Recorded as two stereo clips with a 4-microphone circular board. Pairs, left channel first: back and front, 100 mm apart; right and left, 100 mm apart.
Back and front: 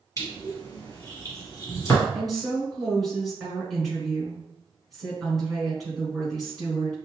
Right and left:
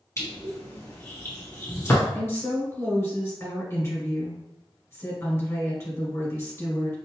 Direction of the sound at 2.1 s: 90° right.